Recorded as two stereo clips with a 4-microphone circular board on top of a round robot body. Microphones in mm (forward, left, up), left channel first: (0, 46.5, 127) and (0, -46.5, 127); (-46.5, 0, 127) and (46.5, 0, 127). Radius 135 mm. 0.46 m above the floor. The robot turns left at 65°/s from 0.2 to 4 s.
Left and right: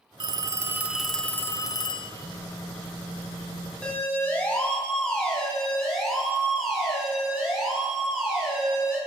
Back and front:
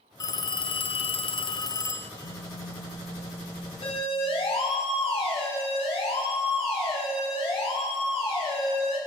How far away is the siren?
About 7 m.